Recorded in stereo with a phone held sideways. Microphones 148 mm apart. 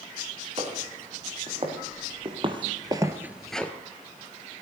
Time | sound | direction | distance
0.6 | footsteps | 45° right (ahead or behind) | 4 m